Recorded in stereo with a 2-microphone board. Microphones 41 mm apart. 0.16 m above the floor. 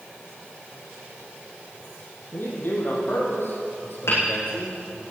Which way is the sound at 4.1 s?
75° left (ahead or behind).